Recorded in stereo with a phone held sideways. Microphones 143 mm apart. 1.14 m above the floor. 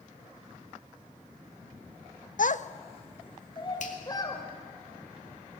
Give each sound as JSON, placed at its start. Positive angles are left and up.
{"t": 2.4, "sound": "a child speaking", "side_deg": 65, "distance_m": 0.6}
{"t": 3.8, "sound": "a finger snap", "side_deg": 60, "distance_m": 2.5}